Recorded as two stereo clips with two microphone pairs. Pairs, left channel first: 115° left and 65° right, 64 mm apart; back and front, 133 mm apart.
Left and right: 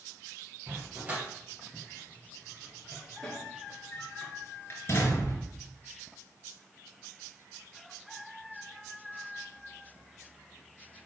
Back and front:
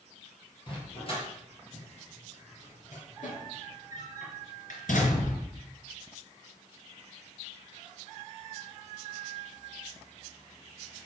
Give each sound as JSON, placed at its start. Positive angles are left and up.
{"t": 0.7, "sound": "a dog barking", "azimuth_deg": -130, "distance_m": 4.5}